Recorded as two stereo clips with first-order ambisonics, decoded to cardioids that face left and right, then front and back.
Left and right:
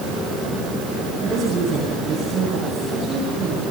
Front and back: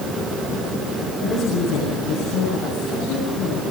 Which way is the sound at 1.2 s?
30° right.